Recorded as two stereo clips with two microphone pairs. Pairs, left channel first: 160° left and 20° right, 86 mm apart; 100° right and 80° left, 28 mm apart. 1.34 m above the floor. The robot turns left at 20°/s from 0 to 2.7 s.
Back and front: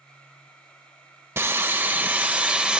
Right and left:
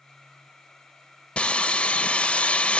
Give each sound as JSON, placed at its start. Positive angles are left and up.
{"t": 1.4, "sound": "sawing", "azimuth_deg": -70, "distance_m": 1.4}